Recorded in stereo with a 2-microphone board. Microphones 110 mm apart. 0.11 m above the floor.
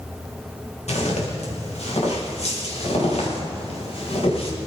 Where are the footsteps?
80° left, 5.5 m; by 4.5 s 65° left (ahead or behind), 6 m.